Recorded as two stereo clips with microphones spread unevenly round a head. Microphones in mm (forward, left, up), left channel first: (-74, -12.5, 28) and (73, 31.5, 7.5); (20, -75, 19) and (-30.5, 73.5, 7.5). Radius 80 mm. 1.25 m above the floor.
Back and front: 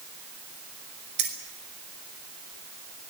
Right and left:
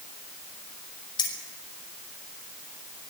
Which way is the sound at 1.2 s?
5° right.